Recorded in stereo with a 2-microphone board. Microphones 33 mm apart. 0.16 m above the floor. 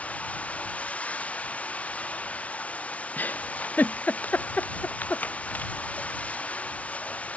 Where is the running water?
45° left (ahead or behind).